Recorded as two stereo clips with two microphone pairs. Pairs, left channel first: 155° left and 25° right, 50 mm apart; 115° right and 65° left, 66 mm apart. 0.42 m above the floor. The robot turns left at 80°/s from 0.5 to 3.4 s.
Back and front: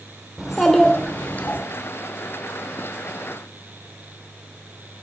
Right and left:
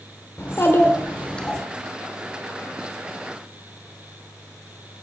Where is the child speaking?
110° right, 1.0 m; by 1.6 s 165° left, 1.0 m.